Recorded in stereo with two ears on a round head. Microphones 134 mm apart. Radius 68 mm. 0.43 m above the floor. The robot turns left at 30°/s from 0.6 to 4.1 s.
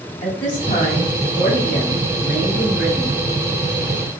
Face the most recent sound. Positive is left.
turn(degrees=-50)